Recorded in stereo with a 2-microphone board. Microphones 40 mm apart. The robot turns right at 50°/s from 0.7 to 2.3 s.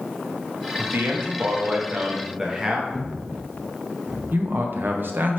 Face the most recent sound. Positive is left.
turn(degrees=-55)  # may be behind; listen again after turning